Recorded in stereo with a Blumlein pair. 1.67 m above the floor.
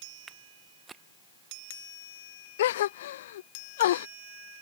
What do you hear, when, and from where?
0.3 s footsteps: 15° right
2.6 s a gasp: 60° left